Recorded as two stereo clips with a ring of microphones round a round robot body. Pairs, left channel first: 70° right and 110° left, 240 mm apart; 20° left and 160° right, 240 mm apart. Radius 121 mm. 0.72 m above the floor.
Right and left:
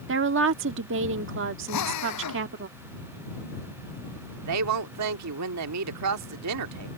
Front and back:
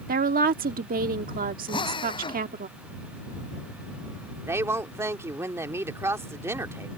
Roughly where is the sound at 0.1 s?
Behind left.